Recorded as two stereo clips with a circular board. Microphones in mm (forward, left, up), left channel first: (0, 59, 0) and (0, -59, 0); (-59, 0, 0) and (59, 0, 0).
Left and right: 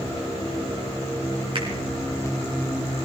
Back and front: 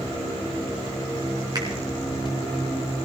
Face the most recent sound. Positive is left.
turn(degrees=-50)